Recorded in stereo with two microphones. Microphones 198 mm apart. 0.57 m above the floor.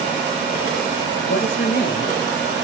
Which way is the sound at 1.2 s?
60° left (ahead or behind).